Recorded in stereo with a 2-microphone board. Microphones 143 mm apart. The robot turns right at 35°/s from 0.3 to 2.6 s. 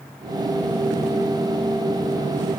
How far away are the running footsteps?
I don't hear running footsteps.